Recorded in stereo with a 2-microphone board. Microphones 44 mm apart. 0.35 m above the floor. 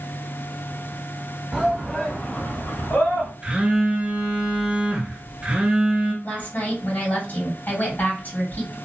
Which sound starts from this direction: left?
A woman speaking, at 6.2 s.